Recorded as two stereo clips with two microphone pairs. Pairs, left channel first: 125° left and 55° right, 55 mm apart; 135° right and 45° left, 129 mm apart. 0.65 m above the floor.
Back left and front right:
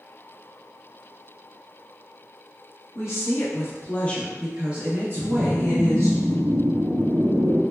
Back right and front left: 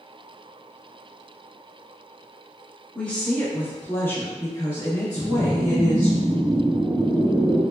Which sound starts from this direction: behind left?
A woman speaking, at 3.0 s.